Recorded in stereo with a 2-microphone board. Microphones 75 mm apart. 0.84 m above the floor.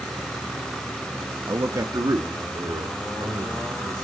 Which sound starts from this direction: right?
A man speaking, at 1.5 s.